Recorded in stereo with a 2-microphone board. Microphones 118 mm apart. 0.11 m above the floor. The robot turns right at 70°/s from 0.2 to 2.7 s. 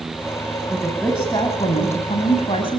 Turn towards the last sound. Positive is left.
turn(degrees=130)